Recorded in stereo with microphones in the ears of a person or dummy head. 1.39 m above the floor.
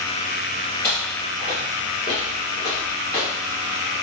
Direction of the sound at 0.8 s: 5° left (ahead or behind).